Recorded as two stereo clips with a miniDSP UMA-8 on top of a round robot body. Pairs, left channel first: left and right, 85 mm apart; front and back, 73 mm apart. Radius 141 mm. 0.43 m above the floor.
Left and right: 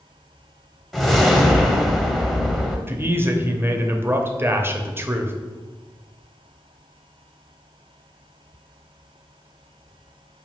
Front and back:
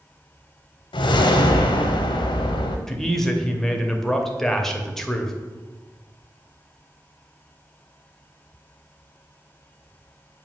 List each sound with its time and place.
0.9 s a whoosh: straight ahead, 0.6 m
2.9 s a man speaking: 80° right, 1.0 m